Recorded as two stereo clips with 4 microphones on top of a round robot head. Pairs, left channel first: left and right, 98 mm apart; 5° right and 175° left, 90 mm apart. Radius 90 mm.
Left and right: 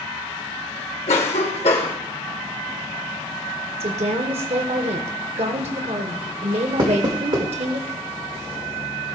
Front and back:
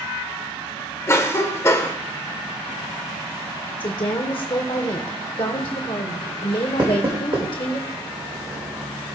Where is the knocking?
130° right, 1.6 m.